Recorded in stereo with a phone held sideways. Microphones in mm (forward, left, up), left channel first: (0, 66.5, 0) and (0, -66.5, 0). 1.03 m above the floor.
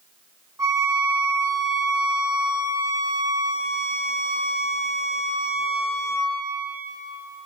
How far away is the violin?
About 1.5 m.